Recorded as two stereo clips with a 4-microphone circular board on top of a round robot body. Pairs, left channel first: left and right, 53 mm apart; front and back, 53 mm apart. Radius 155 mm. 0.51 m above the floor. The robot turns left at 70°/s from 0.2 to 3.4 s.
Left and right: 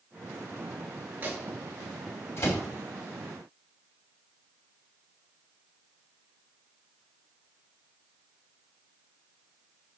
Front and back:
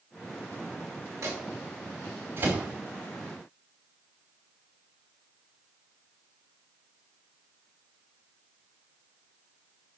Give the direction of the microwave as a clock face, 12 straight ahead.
5 o'clock.